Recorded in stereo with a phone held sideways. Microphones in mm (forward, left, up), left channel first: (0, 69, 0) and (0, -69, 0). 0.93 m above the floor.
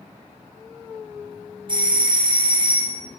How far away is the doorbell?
About 0.7 m.